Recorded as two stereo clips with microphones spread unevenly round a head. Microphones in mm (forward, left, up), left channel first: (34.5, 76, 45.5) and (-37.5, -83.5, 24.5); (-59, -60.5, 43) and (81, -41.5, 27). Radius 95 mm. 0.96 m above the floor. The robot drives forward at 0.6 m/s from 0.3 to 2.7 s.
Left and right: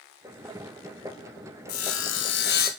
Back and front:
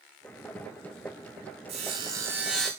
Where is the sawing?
65° left, 1.0 m; by 2.7 s 100° left, 1.0 m.